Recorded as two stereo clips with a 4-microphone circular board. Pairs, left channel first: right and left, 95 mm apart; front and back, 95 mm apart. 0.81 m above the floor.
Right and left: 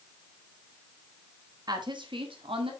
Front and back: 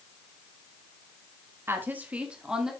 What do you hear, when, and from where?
1.7 s a woman speaking: 120° left, 1.3 m; by 2.7 s 95° left, 2 m